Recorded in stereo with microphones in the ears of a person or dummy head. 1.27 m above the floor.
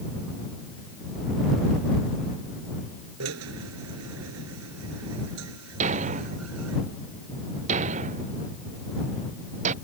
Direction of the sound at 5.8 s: 35° right (ahead or behind).